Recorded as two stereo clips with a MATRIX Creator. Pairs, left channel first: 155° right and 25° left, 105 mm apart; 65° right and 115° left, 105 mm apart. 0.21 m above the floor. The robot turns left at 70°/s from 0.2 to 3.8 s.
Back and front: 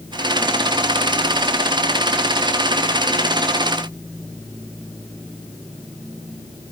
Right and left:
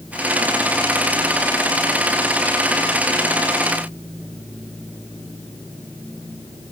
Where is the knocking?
I don't hear knocking.